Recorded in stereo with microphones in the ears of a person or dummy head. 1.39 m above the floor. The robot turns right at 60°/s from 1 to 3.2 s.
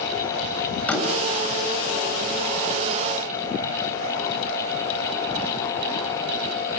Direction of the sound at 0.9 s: 10° left (ahead or behind).